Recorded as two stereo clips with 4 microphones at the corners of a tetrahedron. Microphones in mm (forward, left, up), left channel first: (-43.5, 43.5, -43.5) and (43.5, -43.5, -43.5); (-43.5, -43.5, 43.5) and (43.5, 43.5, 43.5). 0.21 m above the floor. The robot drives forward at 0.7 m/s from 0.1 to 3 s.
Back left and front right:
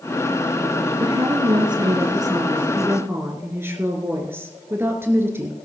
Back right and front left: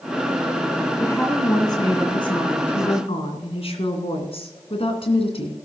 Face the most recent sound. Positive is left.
turn(degrees=-115)